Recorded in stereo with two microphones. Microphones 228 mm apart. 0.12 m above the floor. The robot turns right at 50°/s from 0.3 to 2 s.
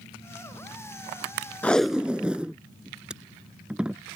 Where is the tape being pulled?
5° left (ahead or behind); by 4.0 s 5° right (ahead or behind).